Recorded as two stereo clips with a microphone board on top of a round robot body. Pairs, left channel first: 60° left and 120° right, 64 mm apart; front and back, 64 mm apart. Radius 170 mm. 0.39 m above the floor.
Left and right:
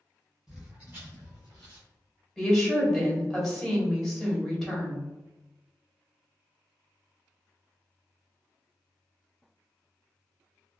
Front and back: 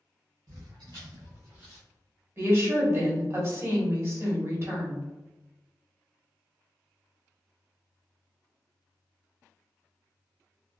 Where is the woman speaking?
145° left, 1.7 m.